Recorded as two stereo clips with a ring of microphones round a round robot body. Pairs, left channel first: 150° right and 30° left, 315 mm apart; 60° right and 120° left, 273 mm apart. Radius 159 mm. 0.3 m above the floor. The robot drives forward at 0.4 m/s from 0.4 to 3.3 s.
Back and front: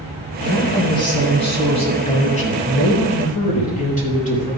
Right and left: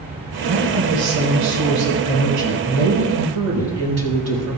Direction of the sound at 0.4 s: 135° left.